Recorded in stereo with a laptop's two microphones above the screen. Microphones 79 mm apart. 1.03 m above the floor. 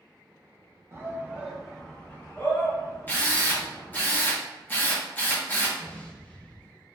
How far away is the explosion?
About 0.5 m.